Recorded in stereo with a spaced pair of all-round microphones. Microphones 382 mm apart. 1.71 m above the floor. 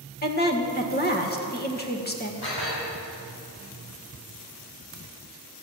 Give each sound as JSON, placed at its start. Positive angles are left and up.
{"t": 0.2, "sound": "a woman speaking", "side_deg": 25, "distance_m": 1.8}
{"t": 2.4, "sound": "dishes clattering", "side_deg": 80, "distance_m": 6.5}